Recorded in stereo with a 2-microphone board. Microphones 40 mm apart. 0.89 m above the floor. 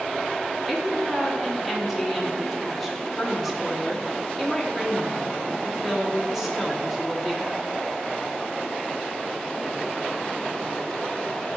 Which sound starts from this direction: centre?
A woman speaking, at 0.7 s.